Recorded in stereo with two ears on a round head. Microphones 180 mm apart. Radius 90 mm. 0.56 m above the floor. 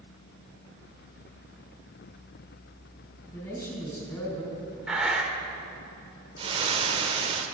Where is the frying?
30° right (ahead or behind), 1.4 m.